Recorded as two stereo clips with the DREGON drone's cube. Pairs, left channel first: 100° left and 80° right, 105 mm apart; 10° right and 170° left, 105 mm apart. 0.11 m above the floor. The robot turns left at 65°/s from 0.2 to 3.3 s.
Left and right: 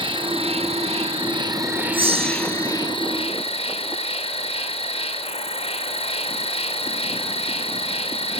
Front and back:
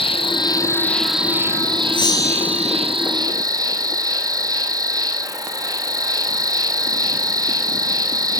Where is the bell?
50° right, 2.5 m; by 2.7 s 100° right, 2.5 m.